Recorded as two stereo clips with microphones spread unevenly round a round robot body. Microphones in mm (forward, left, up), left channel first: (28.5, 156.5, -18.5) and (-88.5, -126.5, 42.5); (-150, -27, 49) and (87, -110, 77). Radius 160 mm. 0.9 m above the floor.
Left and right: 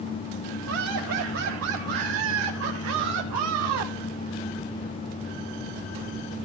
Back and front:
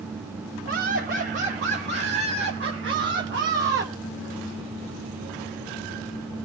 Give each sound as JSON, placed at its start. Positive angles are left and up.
{"t": 0.7, "sound": "laughter", "azimuth_deg": -60, "distance_m": 6.0}